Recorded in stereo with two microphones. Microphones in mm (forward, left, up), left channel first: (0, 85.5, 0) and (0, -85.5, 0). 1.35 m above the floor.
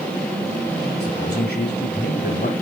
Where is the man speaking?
75° left (ahead or behind), 6.5 m.